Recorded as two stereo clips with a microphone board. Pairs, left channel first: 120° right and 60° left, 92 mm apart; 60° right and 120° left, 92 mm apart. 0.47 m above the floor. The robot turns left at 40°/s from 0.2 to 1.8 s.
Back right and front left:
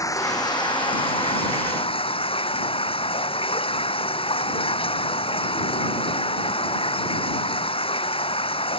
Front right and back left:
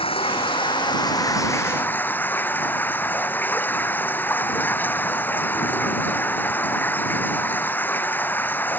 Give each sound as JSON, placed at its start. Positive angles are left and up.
{"t": 0.0, "sound": "running water", "azimuth_deg": -65}